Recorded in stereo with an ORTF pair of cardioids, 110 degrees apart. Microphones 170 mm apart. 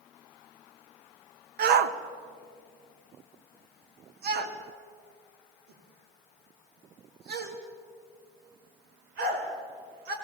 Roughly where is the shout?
Right.